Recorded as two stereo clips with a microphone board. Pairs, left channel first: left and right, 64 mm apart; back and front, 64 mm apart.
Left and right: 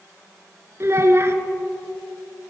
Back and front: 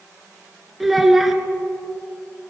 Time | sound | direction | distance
0.8 | a child speaking | 85° right | 0.8 m